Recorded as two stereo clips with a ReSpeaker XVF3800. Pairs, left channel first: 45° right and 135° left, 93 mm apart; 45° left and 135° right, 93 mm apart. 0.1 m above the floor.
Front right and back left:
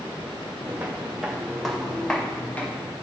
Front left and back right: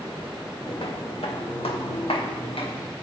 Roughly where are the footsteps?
Ahead left.